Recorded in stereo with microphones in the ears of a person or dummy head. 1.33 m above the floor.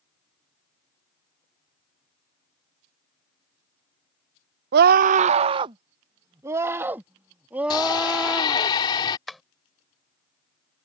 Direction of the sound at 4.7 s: 60° right (ahead or behind).